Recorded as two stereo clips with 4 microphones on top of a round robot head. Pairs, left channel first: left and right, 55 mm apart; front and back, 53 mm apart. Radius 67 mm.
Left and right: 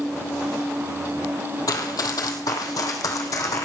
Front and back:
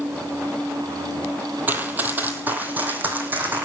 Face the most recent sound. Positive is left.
turn(degrees=125)